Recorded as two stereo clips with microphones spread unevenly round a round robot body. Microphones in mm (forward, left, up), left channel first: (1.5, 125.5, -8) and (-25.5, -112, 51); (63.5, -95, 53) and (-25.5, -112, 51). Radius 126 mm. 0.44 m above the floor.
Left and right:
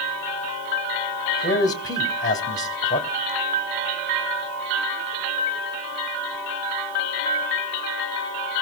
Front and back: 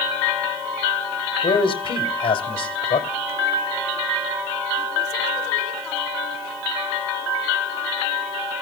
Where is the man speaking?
15° left, 2 m.